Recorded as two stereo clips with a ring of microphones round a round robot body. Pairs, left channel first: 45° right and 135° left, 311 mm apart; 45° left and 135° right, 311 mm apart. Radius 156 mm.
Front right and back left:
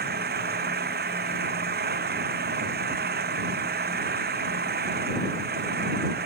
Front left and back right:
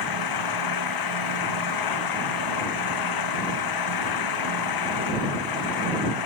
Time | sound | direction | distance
0.0 | an engine running | 70° left | ?